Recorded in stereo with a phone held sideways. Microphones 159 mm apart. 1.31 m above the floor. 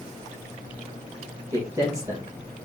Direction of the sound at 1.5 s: 20° right (ahead or behind).